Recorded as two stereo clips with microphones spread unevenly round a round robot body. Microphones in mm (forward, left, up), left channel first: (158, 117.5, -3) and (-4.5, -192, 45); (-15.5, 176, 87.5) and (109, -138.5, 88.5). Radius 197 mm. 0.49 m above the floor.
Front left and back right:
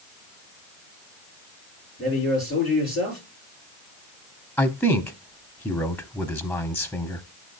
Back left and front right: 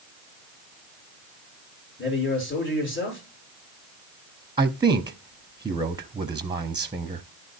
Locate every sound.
2.0 s a man speaking: 175° left, 7 m
4.6 s a man speaking: 5° right, 0.9 m